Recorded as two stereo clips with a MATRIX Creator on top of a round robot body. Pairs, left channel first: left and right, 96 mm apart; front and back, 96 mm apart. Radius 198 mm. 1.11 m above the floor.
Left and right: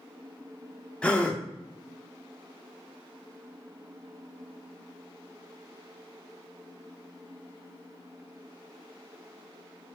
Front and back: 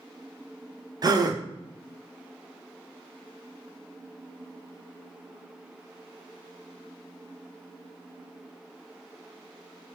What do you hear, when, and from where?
1.0 s a gasp: 165° left, 0.7 m